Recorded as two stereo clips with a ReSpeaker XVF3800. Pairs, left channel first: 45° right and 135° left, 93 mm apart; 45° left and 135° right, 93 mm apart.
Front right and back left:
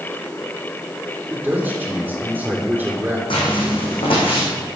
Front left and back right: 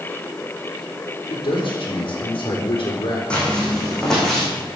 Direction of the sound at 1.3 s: 55° left.